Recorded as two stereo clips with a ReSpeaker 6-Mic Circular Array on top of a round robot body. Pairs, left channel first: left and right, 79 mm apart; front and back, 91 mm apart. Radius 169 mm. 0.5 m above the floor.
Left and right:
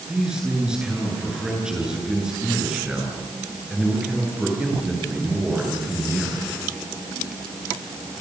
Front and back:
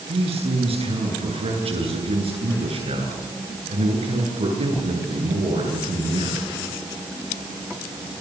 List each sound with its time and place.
0.1 s a man speaking: 170° right, 9 m